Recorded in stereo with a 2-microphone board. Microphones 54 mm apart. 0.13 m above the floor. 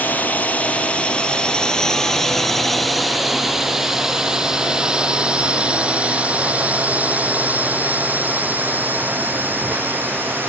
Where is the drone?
30° left (ahead or behind); by 10.5 s 40° right (ahead or behind).